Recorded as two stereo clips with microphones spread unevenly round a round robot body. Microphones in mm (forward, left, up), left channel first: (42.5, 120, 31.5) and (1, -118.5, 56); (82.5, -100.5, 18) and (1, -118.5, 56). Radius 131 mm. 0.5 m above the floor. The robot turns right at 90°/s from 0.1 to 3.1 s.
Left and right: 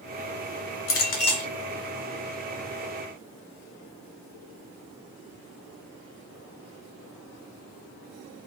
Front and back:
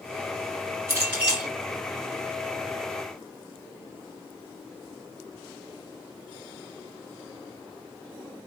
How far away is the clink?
About 1.5 m.